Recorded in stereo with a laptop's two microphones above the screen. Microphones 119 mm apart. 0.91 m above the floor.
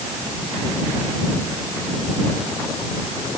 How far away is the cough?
I don't hear a cough.